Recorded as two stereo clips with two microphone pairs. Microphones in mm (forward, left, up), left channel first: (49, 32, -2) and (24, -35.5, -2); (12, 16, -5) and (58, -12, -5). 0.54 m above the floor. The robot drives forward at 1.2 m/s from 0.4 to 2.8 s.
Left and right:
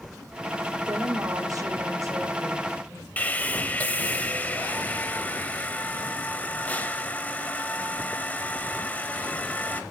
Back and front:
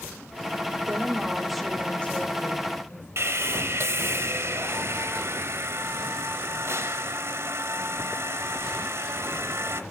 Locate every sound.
0.9 s a woman speaking: 70° right, 1.1 m; by 3.1 s 160° right, 2 m
3.2 s sawing: straight ahead, 0.8 m